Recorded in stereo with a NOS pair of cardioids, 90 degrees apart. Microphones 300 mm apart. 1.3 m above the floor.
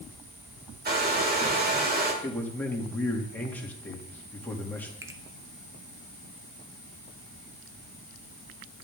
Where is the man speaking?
5° left, 2.5 m.